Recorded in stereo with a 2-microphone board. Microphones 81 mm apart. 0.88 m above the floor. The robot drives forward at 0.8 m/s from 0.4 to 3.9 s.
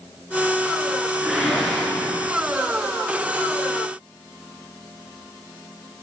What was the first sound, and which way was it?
A whoosh, centre (ahead or behind).